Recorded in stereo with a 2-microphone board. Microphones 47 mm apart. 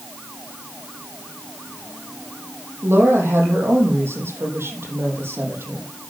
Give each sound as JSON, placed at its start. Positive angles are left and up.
{"t": 2.8, "sound": "a woman speaking", "side_deg": -70, "distance_m": 5.0}